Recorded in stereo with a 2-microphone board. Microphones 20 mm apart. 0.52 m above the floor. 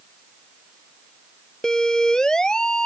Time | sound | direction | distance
1.6 | a siren | 30° left (ahead or behind) | ?